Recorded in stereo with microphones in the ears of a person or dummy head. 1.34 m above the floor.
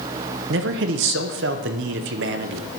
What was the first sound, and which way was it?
A man speaking, 60° right (ahead or behind).